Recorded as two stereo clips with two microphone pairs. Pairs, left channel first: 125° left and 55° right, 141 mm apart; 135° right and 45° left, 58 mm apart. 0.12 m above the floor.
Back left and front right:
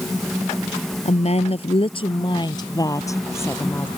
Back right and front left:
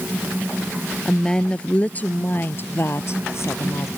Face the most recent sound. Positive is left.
turn(degrees=-160)